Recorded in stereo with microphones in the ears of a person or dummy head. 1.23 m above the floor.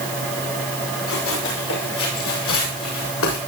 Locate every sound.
1.1 s running footsteps: 80° left, 9 m